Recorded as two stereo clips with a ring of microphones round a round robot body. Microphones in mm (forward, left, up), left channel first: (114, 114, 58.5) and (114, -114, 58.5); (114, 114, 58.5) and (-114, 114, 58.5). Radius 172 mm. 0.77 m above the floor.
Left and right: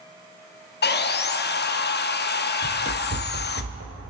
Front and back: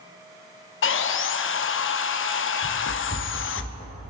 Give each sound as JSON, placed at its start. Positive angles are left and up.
{"t": 0.8, "sound": "sawing", "azimuth_deg": 40, "distance_m": 0.6}
{"t": 2.6, "sound": "running footsteps", "azimuth_deg": -30, "distance_m": 1.4}